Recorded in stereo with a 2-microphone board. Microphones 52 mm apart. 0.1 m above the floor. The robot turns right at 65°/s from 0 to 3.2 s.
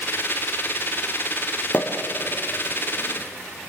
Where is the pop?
35° left (ahead or behind), 3.5 m; by 1.9 s 20° left (ahead or behind), 3.5 m.